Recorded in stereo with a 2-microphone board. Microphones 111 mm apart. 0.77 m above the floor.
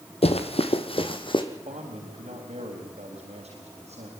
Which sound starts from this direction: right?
A man speaking, at 1.5 s.